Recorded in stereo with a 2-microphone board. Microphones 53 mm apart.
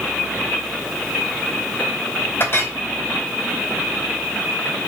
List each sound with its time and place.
2.4 s a clink: 50° left (ahead or behind), 2 m